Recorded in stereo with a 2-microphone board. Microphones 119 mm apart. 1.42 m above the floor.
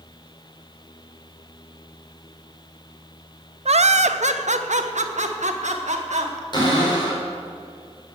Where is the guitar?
I don't hear a guitar.